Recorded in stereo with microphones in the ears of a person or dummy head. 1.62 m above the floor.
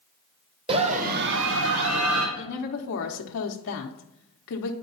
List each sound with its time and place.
0.7 s a scream: 30° right (ahead or behind), 0.9 m; by 2.3 s 85° right, 1.4 m
2.4 s a woman speaking: 60° left (ahead or behind), 0.9 m